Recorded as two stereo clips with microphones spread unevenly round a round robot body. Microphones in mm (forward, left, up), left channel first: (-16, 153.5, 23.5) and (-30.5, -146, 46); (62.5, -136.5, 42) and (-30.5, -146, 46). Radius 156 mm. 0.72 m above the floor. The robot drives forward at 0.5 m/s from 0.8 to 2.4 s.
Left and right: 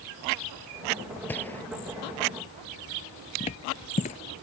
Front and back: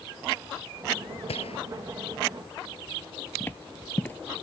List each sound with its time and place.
1.3 s a gunshot: 5° left
3.4 s footsteps: 50° left